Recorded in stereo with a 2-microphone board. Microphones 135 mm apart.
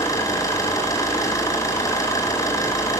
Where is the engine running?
25° left (ahead or behind), 7 m.